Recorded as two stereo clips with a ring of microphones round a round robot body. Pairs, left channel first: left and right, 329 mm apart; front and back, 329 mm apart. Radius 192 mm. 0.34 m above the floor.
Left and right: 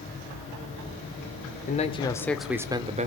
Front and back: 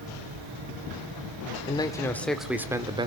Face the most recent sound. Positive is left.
turn(degrees=-125)